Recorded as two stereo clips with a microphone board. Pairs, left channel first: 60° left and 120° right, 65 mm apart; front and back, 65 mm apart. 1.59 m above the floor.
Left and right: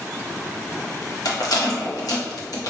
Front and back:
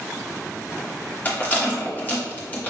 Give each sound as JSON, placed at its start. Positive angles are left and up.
{"t": 1.2, "sound": "a rattle", "azimuth_deg": 60, "distance_m": 1.0}